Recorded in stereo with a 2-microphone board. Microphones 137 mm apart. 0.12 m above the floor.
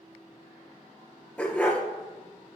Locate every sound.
1.4 s a dog barking: 10° left (ahead or behind), 1.0 m